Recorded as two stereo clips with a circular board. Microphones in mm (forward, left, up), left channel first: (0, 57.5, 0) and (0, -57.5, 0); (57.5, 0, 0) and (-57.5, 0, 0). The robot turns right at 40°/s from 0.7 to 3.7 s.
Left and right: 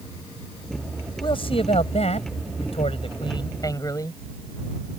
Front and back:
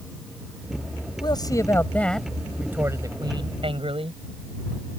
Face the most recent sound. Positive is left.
turn(degrees=145)